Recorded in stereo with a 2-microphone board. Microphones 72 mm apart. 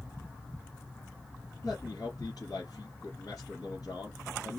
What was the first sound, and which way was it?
A man speaking, 60° left (ahead or behind).